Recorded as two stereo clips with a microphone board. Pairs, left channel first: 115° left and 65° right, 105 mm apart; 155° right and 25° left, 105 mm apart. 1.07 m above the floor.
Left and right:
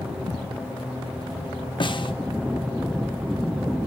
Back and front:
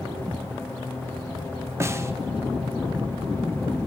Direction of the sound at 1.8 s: 85° left.